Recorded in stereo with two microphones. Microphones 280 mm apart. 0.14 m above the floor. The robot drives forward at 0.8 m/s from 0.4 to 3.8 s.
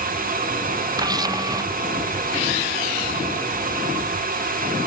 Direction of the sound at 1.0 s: 15° right (ahead or behind).